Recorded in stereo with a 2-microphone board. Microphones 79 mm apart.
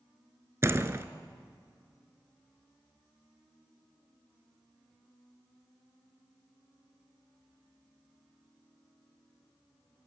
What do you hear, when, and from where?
0.6 s a door slam: 30° right (ahead or behind), 1.0 m